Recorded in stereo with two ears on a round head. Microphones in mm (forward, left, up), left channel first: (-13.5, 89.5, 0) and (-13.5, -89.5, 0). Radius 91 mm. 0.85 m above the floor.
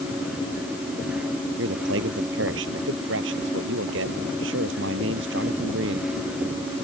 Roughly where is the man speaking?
Right.